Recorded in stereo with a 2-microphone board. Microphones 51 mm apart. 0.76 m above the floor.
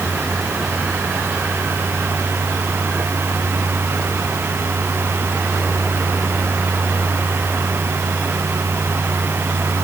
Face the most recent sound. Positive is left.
No sound to turn to.